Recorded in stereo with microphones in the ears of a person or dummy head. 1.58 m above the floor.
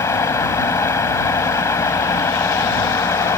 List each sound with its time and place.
0.0 s a fan: 15° left (ahead or behind)